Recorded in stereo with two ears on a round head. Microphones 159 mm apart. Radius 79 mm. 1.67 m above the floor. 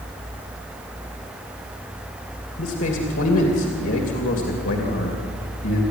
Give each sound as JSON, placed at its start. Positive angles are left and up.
{"t": 2.6, "sound": "a man speaking", "side_deg": 90, "distance_m": 3.0}